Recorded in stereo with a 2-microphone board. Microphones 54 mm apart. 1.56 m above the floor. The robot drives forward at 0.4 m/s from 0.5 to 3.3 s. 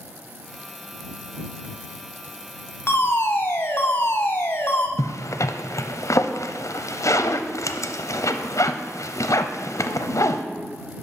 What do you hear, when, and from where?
2.9 s a fire alarm: 40° left (ahead or behind), 0.8 m; by 4.9 s 35° left (ahead or behind), 0.9 m
5.0 s a zipper: 65° left (ahead or behind), 0.5 m